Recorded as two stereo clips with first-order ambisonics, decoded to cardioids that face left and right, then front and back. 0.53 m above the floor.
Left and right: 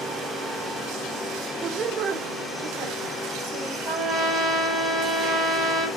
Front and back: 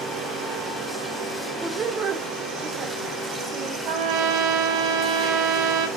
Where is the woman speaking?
115° right, 0.6 m; by 3.8 s 130° right, 2.5 m.